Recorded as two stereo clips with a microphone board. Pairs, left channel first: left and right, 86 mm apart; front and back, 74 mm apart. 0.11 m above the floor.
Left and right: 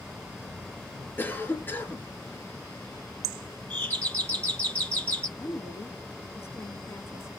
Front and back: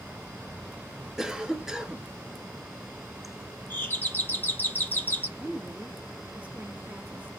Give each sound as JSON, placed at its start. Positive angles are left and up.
{"t": 1.2, "sound": "a cough", "azimuth_deg": 110, "distance_m": 1.2}
{"t": 3.7, "sound": "a doorbell", "azimuth_deg": 30, "distance_m": 2.5}
{"t": 5.4, "sound": "a woman speaking", "azimuth_deg": 125, "distance_m": 1.4}